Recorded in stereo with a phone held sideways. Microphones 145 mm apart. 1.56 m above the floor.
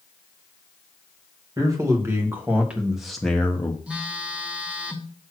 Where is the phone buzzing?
10° right (ahead or behind), 1.1 m.